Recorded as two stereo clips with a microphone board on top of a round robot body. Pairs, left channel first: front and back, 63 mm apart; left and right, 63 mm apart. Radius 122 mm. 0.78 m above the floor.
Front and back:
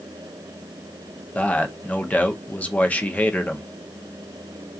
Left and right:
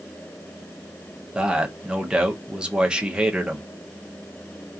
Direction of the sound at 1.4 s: 35° right.